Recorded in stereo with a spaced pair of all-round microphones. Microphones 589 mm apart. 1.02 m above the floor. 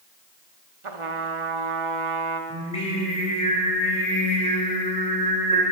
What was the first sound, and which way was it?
A trumpet, 55° right (ahead or behind).